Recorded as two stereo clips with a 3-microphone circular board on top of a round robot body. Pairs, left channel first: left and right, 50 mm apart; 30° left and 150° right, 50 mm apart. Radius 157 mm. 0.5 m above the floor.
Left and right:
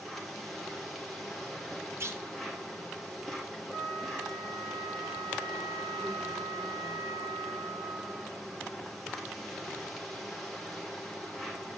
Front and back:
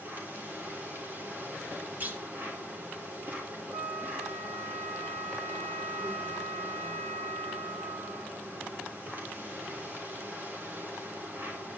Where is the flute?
165° left, 2.5 m.